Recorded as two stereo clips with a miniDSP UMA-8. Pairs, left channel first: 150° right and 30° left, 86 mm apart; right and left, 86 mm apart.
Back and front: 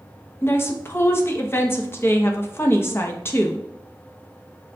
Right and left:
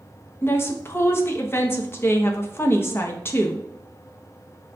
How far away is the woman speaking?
About 0.6 m.